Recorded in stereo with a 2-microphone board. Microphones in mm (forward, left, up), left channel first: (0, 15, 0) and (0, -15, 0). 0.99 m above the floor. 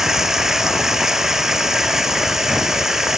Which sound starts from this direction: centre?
Running water, at 0.0 s.